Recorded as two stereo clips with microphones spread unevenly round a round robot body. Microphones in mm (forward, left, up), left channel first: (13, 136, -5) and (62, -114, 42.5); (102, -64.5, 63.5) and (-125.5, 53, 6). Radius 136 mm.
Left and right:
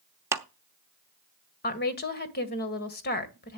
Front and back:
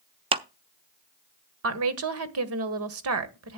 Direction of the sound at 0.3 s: 165° right.